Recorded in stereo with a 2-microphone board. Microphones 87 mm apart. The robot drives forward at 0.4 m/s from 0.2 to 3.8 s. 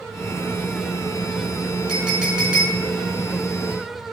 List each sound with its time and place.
1.9 s a clink: 10° right (ahead or behind), 6 m